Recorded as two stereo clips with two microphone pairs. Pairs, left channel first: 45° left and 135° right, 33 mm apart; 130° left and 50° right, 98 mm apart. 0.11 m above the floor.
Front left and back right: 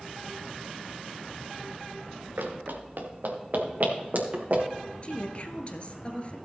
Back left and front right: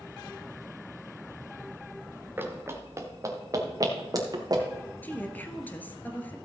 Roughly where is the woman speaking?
Left.